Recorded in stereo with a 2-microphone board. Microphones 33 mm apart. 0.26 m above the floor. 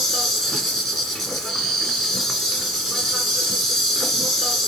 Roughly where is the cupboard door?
I don't hear a cupboard door.